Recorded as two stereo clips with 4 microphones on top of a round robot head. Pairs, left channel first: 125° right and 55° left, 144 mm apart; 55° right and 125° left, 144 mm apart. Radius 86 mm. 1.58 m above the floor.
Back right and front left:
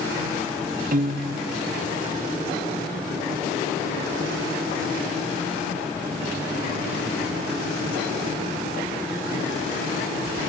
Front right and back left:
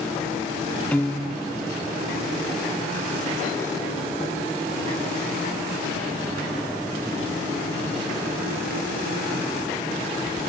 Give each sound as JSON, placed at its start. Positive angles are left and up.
{"t": 0.9, "sound": "a piano", "azimuth_deg": 25, "distance_m": 1.0}